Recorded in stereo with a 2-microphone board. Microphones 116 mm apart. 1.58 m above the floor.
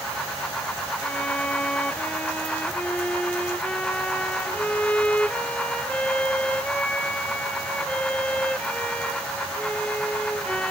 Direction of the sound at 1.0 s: 10° left (ahead or behind).